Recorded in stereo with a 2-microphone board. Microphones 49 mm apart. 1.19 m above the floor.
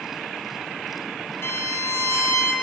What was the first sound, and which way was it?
A violin, 60° left (ahead or behind).